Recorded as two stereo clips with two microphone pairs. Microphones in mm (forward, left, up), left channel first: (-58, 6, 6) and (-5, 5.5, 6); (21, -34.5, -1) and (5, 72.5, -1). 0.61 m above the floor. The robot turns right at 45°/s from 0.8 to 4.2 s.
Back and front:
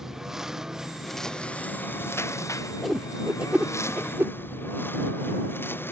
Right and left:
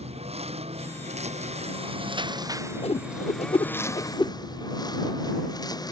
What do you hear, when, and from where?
0.0 s a lawn mower: 80° left; by 5.9 s 135° right
2.8 s a whoosh: 100° right; by 4.3 s 35° right